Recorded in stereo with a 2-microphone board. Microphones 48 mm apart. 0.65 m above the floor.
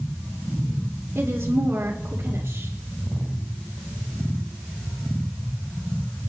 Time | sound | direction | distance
1.1 | a woman speaking | 60° right (ahead or behind) | 2 m